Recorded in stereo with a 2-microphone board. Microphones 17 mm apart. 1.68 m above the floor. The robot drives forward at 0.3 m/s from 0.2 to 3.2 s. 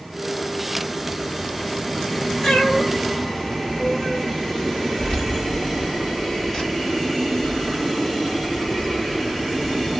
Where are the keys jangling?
55° left (ahead or behind), 1.5 m.